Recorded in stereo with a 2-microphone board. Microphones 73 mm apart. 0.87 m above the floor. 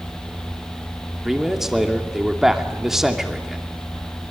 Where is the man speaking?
5° right (ahead or behind), 2.5 m.